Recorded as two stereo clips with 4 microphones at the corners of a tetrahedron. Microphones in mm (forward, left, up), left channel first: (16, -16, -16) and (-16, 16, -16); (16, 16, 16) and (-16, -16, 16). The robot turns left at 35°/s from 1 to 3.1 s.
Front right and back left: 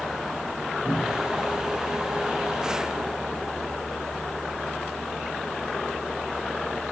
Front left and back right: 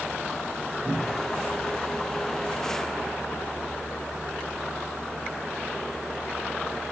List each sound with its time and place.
0.8 s a cupboard door: 5° left, 5 m; by 1.3 s 5° right, 5 m